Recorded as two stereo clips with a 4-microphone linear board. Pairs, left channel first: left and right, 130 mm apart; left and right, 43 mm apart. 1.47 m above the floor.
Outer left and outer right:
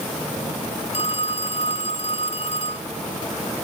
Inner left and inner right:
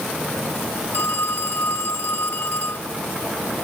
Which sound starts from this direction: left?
A phone ringing, at 0.9 s.